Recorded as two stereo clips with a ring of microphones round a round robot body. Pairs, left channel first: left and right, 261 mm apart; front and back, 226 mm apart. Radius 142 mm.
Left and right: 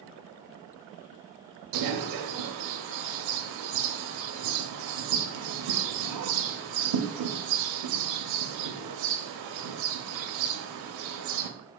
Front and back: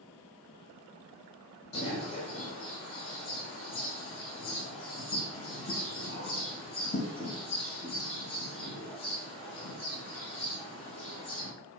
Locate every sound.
1.7 s a bird: 70° right, 0.6 m